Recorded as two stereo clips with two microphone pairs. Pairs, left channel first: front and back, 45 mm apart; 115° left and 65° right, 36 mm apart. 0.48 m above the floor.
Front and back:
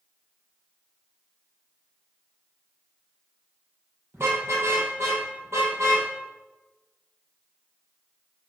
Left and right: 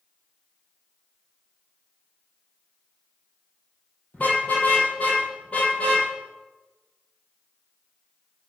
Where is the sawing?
No sawing in this recording.